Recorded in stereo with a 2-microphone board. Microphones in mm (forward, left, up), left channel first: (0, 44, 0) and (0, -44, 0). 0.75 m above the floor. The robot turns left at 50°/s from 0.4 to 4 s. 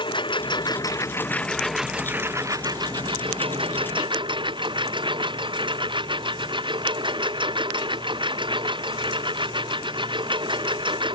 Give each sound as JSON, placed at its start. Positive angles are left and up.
{"t": 0.0, "sound": "a lawn mower", "azimuth_deg": 65}